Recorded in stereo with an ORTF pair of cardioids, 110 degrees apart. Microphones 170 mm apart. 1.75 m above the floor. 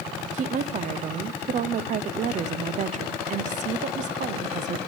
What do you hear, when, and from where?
0.3 s a woman speaking: 45° right, 0.9 m